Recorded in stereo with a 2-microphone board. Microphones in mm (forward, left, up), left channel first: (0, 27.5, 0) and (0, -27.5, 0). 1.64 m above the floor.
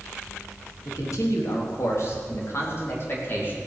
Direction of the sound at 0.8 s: 75° left (ahead or behind).